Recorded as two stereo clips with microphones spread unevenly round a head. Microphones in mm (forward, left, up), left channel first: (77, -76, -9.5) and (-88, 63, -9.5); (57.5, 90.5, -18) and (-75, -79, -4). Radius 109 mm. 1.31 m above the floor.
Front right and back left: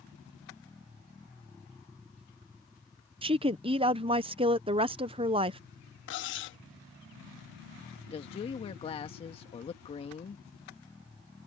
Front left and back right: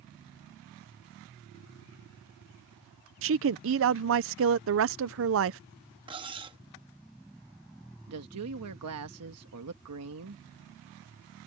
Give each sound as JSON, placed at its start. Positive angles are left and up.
{"t": 3.2, "sound": "a woman speaking", "azimuth_deg": -155}
{"t": 6.1, "sound": "cutlery clinking", "azimuth_deg": -65}
{"t": 8.1, "sound": "a woman speaking", "azimuth_deg": -105}